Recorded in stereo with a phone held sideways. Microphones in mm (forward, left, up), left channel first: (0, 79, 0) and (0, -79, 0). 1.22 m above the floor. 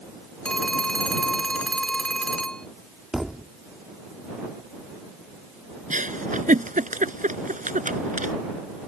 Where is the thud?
5° right (ahead or behind).